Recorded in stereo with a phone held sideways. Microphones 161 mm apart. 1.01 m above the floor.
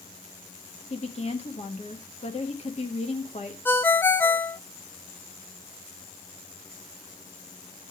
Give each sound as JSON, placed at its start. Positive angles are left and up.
{"t": 0.9, "sound": "a woman speaking", "side_deg": 40, "distance_m": 1.4}
{"t": 3.6, "sound": "a ringtone", "side_deg": 10, "distance_m": 0.5}